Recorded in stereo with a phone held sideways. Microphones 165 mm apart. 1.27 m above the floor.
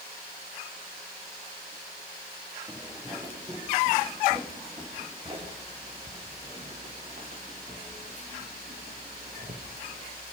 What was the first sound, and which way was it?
Footsteps, 20° right (ahead or behind).